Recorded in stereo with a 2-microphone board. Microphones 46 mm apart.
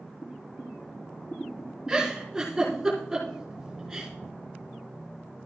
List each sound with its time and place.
0.2 s boiling: 40° left (ahead or behind), 3 m
1.9 s a giggle: 15° right (ahead or behind), 4.5 m